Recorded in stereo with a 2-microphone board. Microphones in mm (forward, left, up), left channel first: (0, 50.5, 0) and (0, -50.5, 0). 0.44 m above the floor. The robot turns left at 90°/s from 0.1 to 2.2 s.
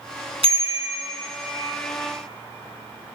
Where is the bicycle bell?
105° right, 3 m; by 1.0 s 155° right, 3 m.